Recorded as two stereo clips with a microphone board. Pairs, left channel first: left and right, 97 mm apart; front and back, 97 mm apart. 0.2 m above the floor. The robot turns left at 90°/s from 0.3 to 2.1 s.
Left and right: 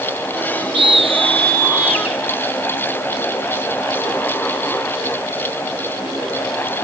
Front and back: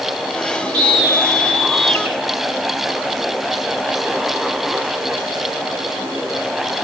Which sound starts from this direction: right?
A scream, at 0.7 s.